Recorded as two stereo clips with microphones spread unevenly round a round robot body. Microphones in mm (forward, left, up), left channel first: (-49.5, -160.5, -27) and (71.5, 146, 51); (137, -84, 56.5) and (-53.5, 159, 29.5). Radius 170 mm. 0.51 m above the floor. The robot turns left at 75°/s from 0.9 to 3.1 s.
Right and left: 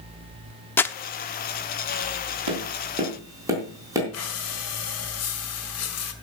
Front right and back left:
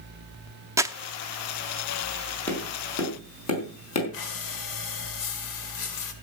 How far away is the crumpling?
About 0.7 m.